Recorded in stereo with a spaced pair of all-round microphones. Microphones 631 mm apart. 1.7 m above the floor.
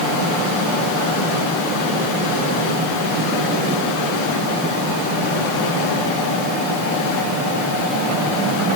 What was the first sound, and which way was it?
Only background noise.